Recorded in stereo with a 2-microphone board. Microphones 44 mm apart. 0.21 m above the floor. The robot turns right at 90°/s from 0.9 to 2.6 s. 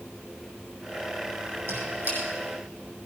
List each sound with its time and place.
1.7 s a squeak: 75° right (ahead or behind), 6.5 m; by 2.2 s 30° right (ahead or behind), 6.5 m